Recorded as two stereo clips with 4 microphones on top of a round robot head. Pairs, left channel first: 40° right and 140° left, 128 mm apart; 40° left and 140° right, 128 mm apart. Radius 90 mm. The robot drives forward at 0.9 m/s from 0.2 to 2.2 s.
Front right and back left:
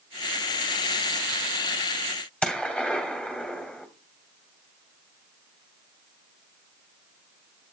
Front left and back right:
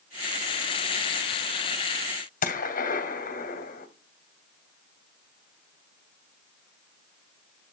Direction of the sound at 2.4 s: 40° left.